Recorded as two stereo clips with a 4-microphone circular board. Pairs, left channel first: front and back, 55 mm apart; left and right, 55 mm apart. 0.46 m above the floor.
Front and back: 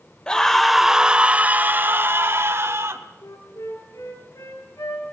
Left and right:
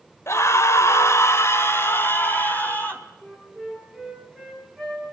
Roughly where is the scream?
Left.